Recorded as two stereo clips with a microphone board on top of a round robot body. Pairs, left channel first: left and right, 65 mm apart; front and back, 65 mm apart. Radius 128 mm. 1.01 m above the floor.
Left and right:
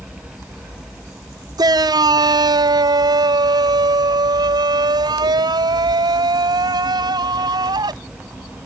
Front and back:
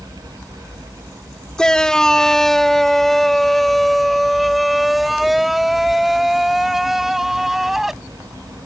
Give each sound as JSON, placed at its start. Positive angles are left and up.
{"t": 1.6, "sound": "a shout", "azimuth_deg": -80}